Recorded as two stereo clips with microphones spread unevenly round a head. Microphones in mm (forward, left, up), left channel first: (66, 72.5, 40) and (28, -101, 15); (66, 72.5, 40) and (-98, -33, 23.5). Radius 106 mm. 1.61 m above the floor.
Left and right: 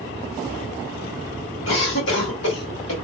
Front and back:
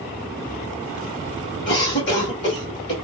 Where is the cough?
65° left, 2 m.